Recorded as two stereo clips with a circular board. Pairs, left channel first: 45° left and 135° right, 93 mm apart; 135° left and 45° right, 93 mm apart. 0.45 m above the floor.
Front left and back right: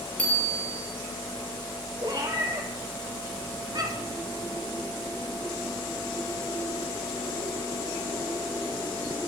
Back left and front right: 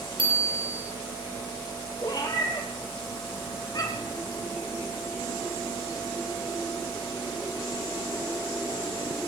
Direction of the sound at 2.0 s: Straight behind.